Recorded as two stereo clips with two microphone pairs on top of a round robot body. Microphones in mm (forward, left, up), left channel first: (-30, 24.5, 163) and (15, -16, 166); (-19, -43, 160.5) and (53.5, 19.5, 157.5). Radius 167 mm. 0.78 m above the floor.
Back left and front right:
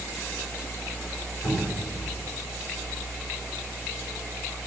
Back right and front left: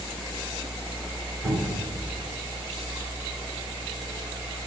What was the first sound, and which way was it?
A cupboard door, 100° left.